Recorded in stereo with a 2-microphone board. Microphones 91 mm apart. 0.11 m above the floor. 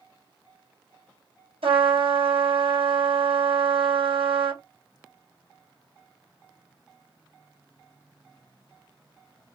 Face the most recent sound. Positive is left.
turn(degrees=-75)  # may be behind; listen again after turning